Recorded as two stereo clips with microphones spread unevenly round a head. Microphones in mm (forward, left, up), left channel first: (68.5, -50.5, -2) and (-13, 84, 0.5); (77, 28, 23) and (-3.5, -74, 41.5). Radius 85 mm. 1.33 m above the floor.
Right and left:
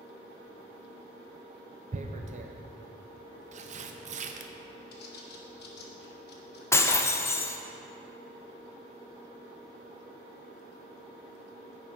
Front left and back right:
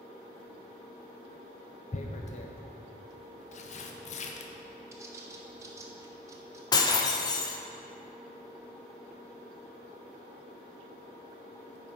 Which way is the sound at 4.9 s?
70° right.